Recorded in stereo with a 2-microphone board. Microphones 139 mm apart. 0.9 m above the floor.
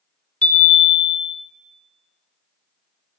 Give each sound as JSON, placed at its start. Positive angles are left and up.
{"t": 0.4, "sound": "a chime", "side_deg": 10, "distance_m": 0.7}